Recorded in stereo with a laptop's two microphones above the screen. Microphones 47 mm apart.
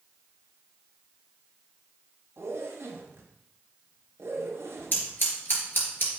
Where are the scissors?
50° left (ahead or behind), 3 m.